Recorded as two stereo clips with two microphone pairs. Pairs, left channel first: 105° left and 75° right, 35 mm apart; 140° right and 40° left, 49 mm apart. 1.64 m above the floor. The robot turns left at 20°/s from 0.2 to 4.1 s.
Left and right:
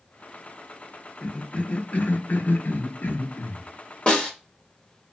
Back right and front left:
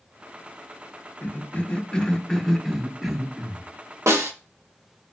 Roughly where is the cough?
Behind.